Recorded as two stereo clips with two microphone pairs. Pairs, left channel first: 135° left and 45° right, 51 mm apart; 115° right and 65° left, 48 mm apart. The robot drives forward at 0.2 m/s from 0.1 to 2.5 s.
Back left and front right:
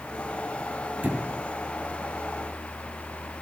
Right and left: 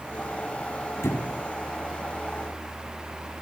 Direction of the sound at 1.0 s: 105° right.